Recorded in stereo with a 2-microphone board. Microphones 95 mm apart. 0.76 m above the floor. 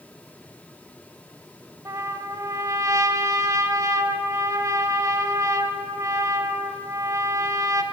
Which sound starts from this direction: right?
A trumpet, at 1.9 s.